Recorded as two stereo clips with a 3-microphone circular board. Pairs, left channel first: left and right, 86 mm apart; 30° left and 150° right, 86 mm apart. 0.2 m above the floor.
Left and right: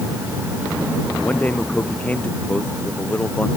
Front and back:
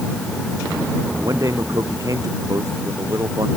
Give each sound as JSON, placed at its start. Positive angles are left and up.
{"t": 1.2, "sound": "a man speaking", "azimuth_deg": 160}